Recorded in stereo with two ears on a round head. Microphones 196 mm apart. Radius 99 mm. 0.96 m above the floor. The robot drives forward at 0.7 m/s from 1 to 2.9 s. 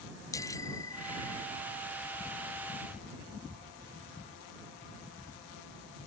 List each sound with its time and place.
0.3 s a bicycle bell: 15° left (ahead or behind)